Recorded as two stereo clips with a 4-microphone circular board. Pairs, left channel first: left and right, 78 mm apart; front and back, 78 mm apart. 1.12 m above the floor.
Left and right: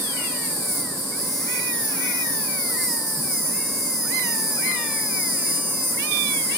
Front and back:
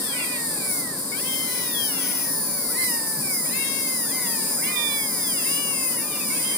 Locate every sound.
0.0 s an insect: 150° right, 2.5 m